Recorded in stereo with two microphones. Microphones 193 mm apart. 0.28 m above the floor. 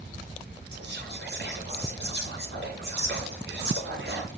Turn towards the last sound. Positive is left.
turn(degrees=-60)  # may be behind; listen again after turning